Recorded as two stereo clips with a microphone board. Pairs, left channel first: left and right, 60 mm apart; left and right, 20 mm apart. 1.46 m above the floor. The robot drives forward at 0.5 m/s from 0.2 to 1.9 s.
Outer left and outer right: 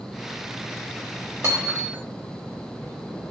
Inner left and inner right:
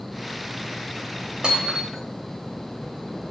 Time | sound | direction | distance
1.4 | hammering | 45° right (ahead or behind) | 2.5 m